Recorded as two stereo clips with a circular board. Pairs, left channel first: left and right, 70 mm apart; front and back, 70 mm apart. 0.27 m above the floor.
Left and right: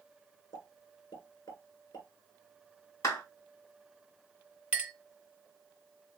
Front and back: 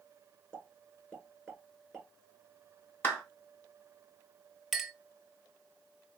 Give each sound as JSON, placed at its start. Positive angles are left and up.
{"t": 0.5, "sound": "a pop", "azimuth_deg": 85, "distance_m": 2.0}
{"t": 3.0, "sound": "a clap", "azimuth_deg": 60, "distance_m": 1.7}
{"t": 4.7, "sound": "a clink", "azimuth_deg": -100, "distance_m": 0.8}